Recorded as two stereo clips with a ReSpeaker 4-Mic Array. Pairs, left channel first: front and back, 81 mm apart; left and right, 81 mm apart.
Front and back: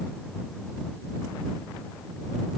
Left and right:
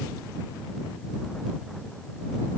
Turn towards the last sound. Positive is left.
No sound to turn to.